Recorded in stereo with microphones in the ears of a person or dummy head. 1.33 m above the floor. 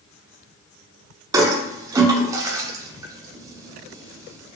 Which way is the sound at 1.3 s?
20° right (ahead or behind).